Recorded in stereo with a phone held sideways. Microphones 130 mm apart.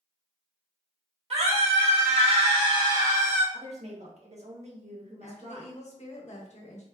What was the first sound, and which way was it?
A scream, 55° right (ahead or behind).